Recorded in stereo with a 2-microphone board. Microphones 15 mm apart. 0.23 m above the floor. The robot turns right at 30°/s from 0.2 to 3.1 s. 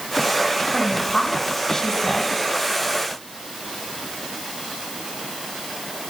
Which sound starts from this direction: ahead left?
A woman speaking, at 0.7 s.